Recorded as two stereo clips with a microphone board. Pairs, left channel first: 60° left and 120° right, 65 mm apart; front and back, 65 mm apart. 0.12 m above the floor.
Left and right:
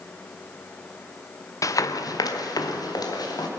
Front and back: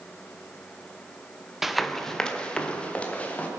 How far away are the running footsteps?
About 1.0 m.